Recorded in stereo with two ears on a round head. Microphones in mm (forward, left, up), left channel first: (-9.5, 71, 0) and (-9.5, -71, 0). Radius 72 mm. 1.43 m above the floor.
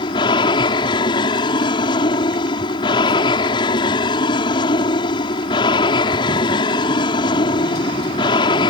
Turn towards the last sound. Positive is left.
turn(degrees=30)  # may be behind; listen again after turning